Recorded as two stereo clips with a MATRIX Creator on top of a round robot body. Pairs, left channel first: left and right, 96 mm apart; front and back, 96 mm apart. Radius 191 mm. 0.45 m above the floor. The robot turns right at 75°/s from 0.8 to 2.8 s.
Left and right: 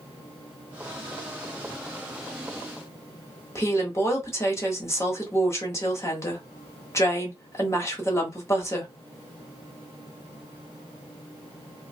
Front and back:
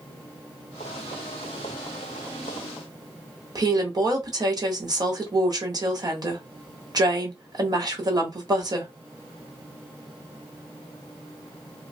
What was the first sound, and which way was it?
A woman speaking, 145° left.